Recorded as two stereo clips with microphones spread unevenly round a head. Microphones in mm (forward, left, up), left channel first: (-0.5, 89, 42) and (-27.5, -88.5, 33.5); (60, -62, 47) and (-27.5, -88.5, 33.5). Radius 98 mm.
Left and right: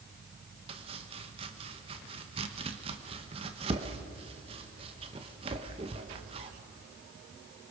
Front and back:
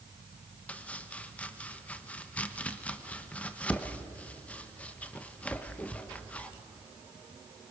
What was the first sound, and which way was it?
Chopping, 45° right.